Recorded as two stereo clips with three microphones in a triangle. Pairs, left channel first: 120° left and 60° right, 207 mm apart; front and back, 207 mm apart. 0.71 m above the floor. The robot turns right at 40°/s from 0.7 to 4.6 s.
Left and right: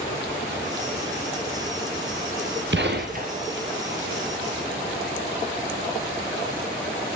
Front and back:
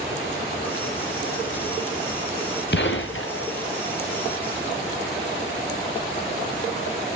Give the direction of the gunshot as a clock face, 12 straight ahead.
1 o'clock.